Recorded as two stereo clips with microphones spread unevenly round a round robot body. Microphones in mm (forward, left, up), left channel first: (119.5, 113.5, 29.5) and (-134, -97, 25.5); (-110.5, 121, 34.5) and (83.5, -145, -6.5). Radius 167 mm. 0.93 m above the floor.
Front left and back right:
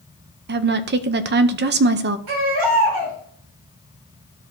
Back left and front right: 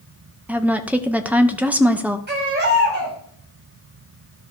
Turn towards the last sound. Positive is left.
turn(degrees=-115)